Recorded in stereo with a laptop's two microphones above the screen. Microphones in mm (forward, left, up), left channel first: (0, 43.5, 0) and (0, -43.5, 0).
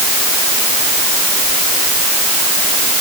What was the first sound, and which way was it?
Only background noise.